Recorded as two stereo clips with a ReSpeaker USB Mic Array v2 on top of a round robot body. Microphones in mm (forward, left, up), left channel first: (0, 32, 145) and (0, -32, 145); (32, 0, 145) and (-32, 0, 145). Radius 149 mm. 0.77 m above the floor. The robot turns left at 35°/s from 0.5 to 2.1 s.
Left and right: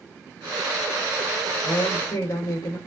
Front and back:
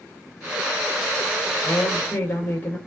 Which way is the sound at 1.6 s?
75° left.